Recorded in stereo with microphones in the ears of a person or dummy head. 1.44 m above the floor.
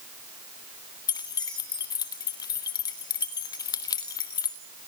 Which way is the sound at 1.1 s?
20° left (ahead or behind).